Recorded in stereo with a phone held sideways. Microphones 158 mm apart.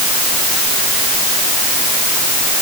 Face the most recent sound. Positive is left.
No sound to turn to.